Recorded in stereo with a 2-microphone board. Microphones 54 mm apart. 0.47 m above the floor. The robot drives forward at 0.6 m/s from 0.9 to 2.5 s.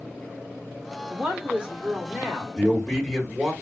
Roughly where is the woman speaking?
Centre.